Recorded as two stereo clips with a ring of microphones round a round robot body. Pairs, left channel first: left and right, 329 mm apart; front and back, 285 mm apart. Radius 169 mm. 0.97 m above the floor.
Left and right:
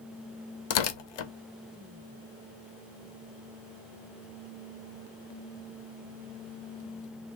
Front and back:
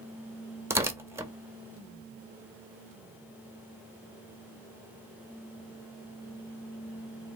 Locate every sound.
0.7 s tearing paper: 100° left, 0.7 m